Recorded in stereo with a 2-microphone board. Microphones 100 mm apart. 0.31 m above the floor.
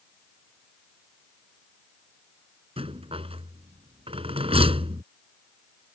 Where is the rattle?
70° right (ahead or behind).